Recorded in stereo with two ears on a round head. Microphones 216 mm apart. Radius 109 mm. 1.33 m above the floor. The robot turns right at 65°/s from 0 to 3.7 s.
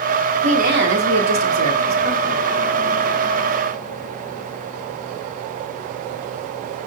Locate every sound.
0.4 s a woman speaking: 155° right, 3 m; by 2.5 s 20° right, 3 m